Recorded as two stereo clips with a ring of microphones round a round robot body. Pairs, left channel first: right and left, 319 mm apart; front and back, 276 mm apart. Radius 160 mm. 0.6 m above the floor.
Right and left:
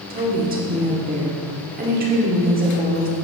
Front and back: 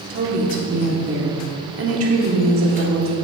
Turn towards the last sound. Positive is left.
turn(degrees=150)